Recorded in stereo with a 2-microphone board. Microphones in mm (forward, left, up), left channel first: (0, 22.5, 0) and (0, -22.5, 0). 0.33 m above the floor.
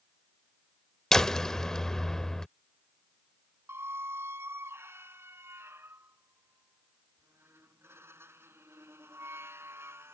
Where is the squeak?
80° right.